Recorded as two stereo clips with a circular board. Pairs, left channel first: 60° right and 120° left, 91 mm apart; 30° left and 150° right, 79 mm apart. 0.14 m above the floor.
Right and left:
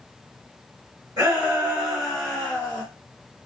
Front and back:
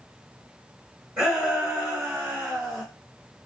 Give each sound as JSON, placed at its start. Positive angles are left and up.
{"t": 1.2, "sound": "a shout", "azimuth_deg": 155, "distance_m": 1.6}